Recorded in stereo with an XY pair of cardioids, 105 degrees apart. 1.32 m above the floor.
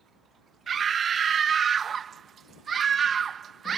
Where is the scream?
45° right.